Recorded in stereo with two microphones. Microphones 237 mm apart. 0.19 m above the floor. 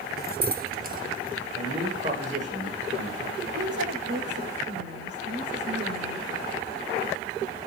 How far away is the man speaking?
About 10 m.